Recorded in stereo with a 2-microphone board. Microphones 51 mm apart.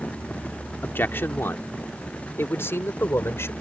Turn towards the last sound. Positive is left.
turn(degrees=65)  # may be behind; listen again after turning